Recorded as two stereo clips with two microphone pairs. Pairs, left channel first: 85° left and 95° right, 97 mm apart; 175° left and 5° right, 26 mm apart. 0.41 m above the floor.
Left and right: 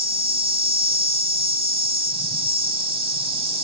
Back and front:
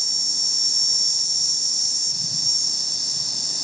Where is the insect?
100° right, 0.8 m.